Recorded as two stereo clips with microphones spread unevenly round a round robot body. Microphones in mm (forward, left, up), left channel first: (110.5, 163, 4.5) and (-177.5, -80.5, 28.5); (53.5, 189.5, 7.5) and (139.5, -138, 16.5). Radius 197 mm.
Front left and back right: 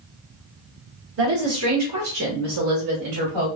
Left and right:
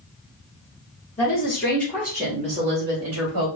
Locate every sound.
1.2 s a woman speaking: 170° left, 1.4 m; by 3.5 s 105° right, 1.3 m